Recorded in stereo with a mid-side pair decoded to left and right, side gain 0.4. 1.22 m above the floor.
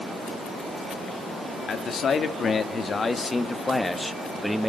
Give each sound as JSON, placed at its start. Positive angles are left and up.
{"t": 1.7, "sound": "a man speaking", "azimuth_deg": 60, "distance_m": 2.5}